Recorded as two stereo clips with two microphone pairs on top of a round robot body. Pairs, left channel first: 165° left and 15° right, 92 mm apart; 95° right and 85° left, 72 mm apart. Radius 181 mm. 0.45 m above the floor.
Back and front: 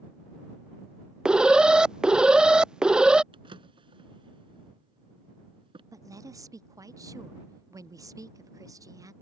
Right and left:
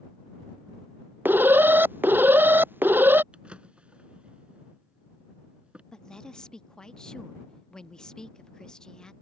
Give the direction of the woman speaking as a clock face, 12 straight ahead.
1 o'clock.